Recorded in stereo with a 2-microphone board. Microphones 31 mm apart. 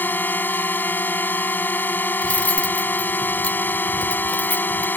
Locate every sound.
0.0 s a drone: 75° left (ahead or behind)
2.2 s cutlery clinking: 50° left (ahead or behind)